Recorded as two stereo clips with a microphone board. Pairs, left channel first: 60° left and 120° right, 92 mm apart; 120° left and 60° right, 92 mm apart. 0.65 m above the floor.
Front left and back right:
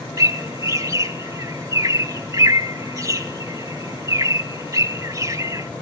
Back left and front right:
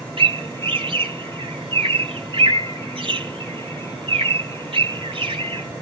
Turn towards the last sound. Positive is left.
turn(degrees=-70)